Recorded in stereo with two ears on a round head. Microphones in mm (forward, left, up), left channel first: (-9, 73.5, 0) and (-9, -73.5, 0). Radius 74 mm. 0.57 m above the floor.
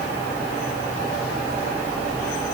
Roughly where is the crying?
I don't hear crying.